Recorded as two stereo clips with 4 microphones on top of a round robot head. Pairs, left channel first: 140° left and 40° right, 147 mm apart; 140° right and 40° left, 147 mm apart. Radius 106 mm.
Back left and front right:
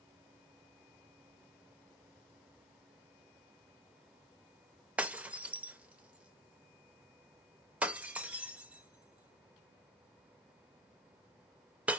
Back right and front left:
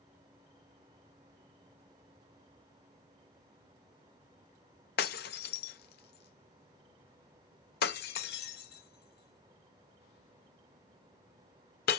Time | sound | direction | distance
5.0 | breaking glass | 120° right | 0.5 m